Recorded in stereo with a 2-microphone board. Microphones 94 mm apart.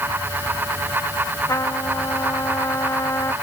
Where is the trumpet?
35° left (ahead or behind).